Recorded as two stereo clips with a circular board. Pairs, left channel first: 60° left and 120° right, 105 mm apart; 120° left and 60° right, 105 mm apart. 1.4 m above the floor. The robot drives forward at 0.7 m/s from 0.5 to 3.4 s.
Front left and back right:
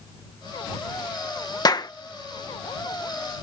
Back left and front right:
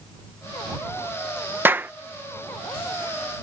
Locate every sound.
1.6 s a clap: 10° left